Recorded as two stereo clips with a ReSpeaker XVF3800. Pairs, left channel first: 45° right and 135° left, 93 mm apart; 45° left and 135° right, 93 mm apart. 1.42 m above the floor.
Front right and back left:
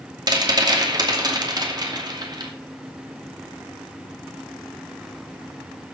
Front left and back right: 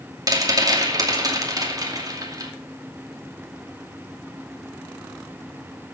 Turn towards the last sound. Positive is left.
turn(degrees=180)